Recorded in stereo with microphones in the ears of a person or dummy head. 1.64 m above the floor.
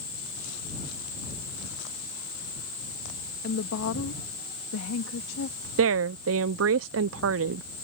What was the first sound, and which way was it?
A woman speaking, 60° left (ahead or behind).